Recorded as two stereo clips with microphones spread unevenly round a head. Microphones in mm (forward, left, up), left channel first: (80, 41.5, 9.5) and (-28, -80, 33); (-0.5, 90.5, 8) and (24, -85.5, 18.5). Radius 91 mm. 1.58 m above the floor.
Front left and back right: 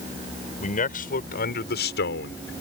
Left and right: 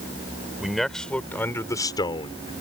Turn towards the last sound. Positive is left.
turn(degrees=40)